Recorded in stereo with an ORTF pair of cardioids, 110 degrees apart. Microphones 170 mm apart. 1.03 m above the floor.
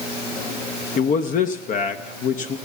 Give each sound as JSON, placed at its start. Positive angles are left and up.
{"t": 1.0, "sound": "a man speaking", "azimuth_deg": 50, "distance_m": 0.8}